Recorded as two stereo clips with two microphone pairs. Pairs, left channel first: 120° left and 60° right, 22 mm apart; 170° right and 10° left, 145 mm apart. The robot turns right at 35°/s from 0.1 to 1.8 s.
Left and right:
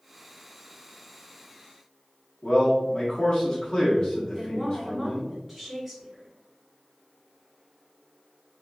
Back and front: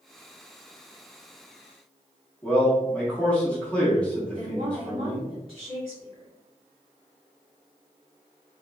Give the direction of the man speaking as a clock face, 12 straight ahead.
8 o'clock.